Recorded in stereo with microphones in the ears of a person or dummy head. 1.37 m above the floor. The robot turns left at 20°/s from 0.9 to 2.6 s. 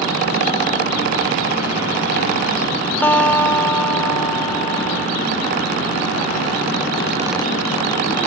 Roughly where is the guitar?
Centre.